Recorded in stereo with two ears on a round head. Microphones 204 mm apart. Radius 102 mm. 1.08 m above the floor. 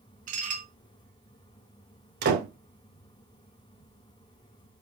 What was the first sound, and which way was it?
Dishes clattering, 35° right (ahead or behind).